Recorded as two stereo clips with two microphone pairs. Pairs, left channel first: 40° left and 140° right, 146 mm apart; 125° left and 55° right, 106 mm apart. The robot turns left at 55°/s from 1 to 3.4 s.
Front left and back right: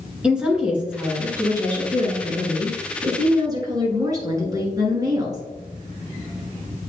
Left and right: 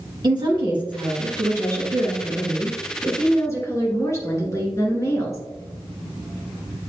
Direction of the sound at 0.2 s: 60° right.